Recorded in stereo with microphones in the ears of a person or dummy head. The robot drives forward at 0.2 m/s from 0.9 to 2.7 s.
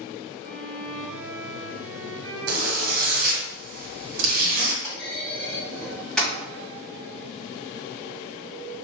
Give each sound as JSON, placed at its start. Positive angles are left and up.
{"t": 0.4, "sound": "a violin", "side_deg": -65, "distance_m": 0.9}
{"t": 2.5, "sound": "a zipper", "side_deg": -85, "distance_m": 1.0}
{"t": 4.8, "sound": "a clunk", "side_deg": 10, "distance_m": 1.6}